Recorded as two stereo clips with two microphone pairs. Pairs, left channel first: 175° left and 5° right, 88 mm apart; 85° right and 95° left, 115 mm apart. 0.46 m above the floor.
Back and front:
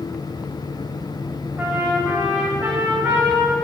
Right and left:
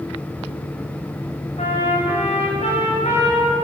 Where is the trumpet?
80° right, 7.5 m.